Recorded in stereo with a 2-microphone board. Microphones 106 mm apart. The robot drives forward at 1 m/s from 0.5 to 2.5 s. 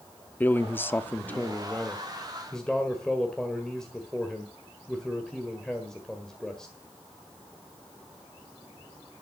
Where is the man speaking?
15° left (ahead or behind), 0.7 m; by 6.7 s 5° left (ahead or behind), 1.8 m.